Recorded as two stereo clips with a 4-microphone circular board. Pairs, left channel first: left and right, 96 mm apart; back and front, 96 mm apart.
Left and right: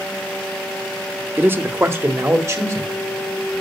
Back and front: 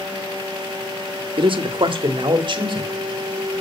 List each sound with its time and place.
1.4 s a man speaking: 20° right, 1.3 m; by 2.9 s 30° right, 2.5 m